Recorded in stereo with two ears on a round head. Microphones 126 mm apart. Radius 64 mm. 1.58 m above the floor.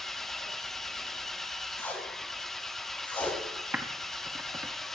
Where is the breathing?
I don't hear breathing.